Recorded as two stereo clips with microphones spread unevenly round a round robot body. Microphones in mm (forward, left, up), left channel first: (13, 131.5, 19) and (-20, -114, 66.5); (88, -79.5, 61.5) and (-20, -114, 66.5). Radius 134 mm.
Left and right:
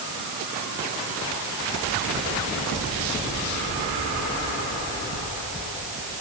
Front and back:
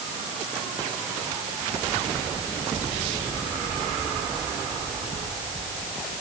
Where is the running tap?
I don't hear a running tap.